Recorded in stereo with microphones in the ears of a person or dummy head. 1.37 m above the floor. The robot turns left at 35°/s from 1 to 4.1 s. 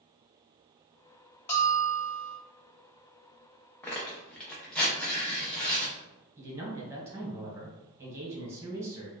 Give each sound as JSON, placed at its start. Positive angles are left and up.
{"t": 1.5, "sound": "a bell", "side_deg": 10, "distance_m": 0.9}
{"t": 3.8, "sound": "tearing paper", "side_deg": 5, "distance_m": 0.6}
{"t": 6.4, "sound": "a man speaking", "side_deg": -10, "distance_m": 1.1}